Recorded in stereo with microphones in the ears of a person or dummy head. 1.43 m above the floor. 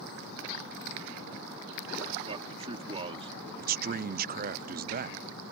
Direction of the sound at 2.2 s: 25° right (ahead or behind).